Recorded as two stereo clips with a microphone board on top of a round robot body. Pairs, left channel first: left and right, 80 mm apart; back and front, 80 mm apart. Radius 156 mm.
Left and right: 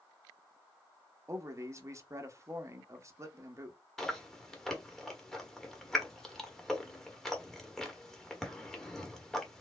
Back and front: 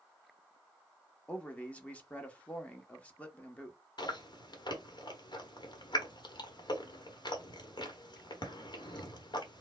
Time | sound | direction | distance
1.3 | a man speaking | 115° right | 0.9 m
4.0 | chewing | 175° left | 1.2 m